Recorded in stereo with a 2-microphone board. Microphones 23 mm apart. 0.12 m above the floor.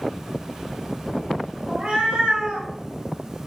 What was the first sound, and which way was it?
A cat meowing, 55° right (ahead or behind).